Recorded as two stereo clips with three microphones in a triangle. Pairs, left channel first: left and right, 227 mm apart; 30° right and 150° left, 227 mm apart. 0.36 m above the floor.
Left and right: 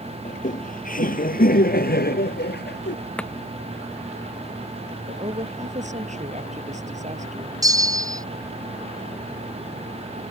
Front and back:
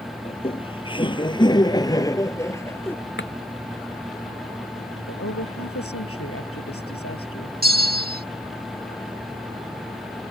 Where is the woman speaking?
30° right.